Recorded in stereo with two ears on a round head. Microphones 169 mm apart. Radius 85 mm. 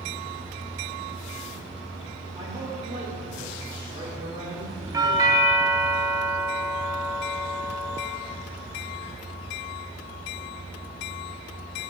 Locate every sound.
2.4 s a man speaking: 25° right (ahead or behind), 2.5 m
4.9 s a doorbell: 20° right (ahead or behind), 0.9 m